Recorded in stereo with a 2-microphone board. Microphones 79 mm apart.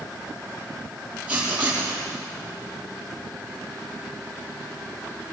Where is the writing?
20° right (ahead or behind), 7 m.